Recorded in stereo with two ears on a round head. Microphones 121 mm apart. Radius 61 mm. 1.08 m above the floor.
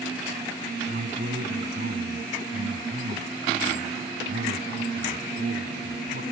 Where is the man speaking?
90° right.